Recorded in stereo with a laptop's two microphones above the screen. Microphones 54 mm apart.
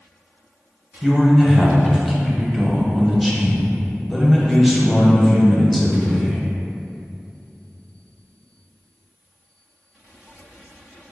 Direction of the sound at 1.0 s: Centre (ahead or behind).